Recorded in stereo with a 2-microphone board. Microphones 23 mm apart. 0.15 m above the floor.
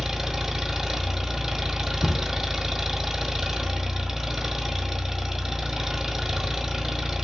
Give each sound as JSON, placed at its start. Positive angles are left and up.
{"t": 0.0, "sound": "an engine running", "side_deg": -15, "distance_m": 1.1}
{"t": 2.0, "sound": "a cupboard door", "side_deg": 15, "distance_m": 0.7}